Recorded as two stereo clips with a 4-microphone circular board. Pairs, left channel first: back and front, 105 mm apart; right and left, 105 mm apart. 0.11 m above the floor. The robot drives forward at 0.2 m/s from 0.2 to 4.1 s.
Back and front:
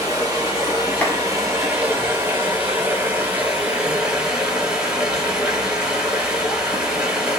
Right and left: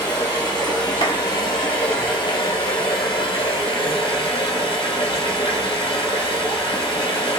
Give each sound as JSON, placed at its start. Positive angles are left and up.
{"t": 0.0, "sound": "running water", "azimuth_deg": -50, "distance_m": 1.7}
{"t": 1.0, "sound": "a clap", "azimuth_deg": -110, "distance_m": 1.6}